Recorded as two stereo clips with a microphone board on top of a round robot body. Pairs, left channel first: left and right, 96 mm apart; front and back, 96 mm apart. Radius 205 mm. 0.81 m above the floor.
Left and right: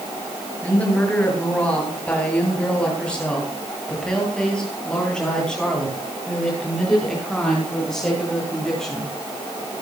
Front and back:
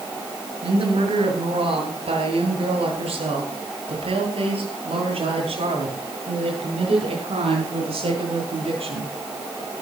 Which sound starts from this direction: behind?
A woman speaking, at 0.6 s.